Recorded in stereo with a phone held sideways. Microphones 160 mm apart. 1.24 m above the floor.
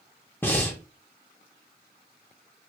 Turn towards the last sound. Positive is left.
turn(degrees=10)  # may be behind; listen again after turning